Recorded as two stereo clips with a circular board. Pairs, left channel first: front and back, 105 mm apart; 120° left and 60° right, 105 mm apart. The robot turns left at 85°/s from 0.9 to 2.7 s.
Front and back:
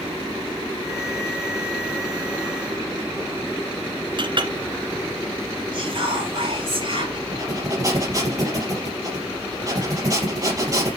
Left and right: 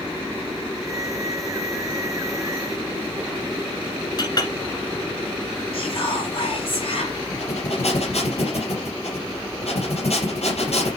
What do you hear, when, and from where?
4.2 s a clink: 160° left, 1.7 m
5.7 s whispering: 145° left, 3.5 m
7.3 s breathing: 125° left, 3.5 m